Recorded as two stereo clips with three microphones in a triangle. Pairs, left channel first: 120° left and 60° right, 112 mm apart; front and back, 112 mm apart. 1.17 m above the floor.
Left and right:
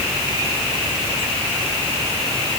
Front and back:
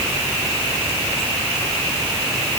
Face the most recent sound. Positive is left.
No sound to turn to.